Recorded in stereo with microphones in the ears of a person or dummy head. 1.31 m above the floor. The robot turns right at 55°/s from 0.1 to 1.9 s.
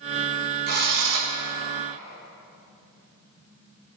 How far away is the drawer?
I don't hear a drawer.